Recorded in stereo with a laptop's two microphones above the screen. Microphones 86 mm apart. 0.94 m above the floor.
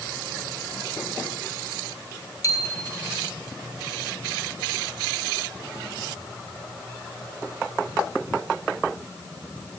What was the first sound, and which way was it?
A bicycle bell, 40° left (ahead or behind).